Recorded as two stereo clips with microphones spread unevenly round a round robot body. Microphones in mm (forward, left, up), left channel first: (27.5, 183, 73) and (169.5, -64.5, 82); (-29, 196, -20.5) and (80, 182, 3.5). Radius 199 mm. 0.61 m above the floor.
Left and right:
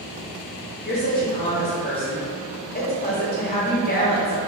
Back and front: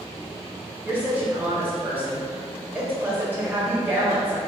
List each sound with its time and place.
0.8 s a woman speaking: 75° left, 0.8 m